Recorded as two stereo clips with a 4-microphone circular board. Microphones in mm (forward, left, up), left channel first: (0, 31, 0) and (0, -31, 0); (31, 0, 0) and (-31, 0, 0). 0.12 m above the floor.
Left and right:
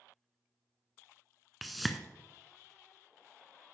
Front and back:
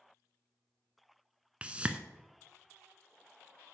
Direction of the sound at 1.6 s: Straight behind.